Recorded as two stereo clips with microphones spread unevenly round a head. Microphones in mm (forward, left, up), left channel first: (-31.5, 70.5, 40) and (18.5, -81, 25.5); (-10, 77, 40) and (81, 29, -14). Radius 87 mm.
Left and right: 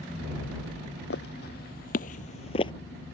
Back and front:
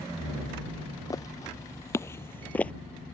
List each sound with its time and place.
1.1 s footsteps: 120° left; by 2.7 s 145° left